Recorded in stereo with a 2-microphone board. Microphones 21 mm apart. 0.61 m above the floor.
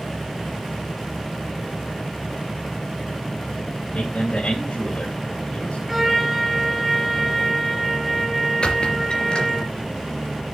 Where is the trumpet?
5° right (ahead or behind), 7 m.